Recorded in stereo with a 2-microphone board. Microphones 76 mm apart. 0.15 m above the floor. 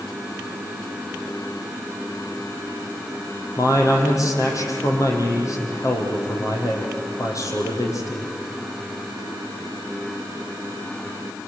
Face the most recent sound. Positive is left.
turn(degrees=45)  # may be behind; listen again after turning